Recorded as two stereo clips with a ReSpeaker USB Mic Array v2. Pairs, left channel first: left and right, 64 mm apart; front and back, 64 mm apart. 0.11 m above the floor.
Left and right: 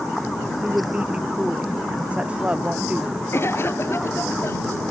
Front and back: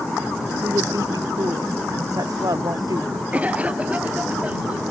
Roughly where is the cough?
Behind left.